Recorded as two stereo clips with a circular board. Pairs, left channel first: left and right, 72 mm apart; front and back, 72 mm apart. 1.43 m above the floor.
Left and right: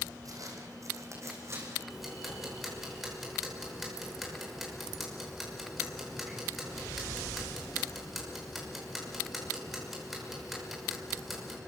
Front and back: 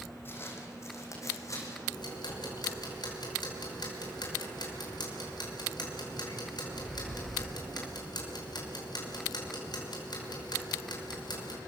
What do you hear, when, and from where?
0.2 s footsteps: 55° right, 5 m; by 1.8 s 40° right, 6.5 m
1.9 s ticking: straight ahead, 5.5 m